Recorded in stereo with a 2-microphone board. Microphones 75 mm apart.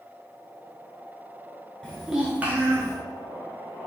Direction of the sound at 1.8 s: 10° left (ahead or behind).